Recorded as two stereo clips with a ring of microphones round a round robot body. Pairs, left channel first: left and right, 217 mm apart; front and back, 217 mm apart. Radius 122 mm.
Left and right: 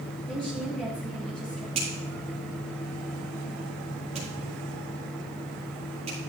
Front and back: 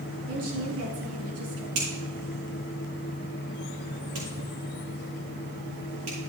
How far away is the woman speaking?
About 4.5 m.